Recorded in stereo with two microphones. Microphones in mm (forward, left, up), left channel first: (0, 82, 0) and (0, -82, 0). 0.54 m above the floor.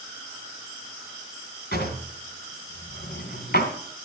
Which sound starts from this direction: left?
A drawer, at 1.7 s.